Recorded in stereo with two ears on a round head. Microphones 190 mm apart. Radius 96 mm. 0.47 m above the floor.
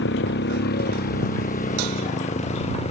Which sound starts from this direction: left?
A motorcycle, at 0.0 s.